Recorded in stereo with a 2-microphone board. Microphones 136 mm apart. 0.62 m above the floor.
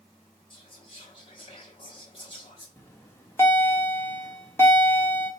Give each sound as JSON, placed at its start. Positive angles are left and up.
{"t": 0.5, "sound": "whispering", "side_deg": 40, "distance_m": 0.9}
{"t": 2.8, "sound": "a bell", "side_deg": 20, "distance_m": 1.2}